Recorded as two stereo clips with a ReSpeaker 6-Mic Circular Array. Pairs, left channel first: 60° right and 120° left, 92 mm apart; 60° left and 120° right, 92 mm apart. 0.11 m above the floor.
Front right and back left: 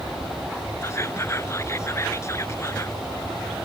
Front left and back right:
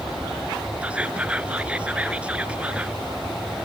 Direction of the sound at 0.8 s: 55° right.